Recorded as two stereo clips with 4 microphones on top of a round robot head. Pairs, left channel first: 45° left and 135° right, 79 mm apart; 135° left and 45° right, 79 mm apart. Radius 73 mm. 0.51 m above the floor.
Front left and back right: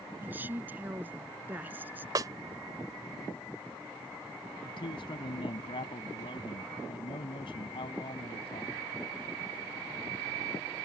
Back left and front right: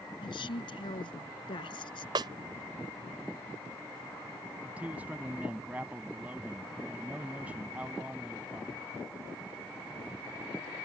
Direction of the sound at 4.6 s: 25° left.